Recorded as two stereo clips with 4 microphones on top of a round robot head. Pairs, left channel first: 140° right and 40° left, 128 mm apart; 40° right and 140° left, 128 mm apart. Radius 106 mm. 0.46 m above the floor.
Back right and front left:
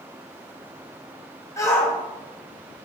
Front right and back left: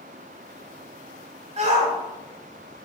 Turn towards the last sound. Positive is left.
turn(degrees=155)